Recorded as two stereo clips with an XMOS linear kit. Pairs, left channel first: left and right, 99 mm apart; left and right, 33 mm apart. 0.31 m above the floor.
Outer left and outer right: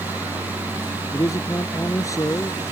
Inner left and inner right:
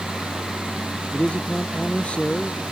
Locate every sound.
1.1 s a man speaking: 35° left (ahead or behind)